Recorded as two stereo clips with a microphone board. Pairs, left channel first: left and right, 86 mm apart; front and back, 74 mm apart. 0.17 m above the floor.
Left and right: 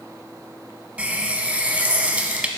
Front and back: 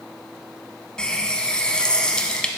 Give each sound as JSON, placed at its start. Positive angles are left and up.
{"t": 1.0, "sound": "a running tap", "azimuth_deg": -50, "distance_m": 0.7}